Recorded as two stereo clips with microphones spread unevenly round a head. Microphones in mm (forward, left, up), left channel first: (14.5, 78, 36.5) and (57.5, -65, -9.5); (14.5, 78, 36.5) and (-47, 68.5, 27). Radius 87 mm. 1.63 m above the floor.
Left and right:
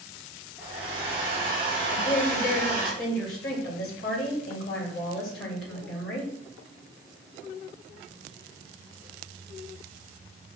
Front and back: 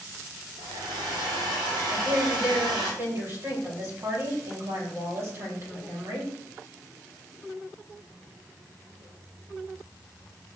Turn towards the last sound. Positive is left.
turn(degrees=145)